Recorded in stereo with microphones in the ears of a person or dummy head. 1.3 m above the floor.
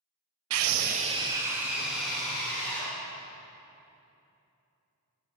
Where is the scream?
85° right, 0.5 m; by 2.9 s 5° left (ahead or behind), 2.5 m.